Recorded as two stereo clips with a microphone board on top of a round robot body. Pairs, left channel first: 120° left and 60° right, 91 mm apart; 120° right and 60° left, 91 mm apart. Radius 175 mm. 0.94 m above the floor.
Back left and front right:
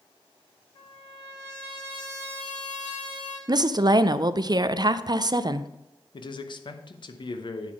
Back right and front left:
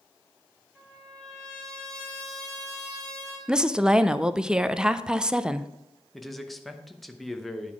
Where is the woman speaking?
20° right, 0.5 m.